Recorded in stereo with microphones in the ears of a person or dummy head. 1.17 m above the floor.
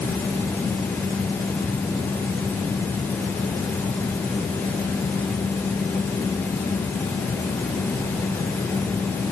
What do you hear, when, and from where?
Only background noise.